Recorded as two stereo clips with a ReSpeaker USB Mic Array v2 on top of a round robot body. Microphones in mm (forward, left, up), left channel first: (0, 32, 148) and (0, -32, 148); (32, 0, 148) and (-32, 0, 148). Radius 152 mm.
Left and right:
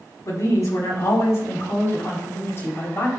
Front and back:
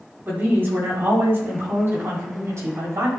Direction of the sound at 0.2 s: 120° left.